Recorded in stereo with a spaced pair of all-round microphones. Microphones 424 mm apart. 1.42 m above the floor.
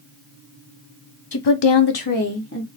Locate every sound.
1.3 s a woman speaking: 55° left (ahead or behind), 0.6 m; by 2.7 s 30° left (ahead or behind), 1.0 m